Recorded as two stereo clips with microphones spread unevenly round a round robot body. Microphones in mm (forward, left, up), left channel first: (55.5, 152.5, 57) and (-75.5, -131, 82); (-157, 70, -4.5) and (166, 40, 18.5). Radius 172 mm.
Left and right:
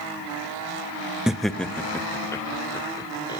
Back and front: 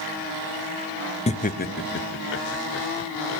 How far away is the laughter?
About 0.9 m.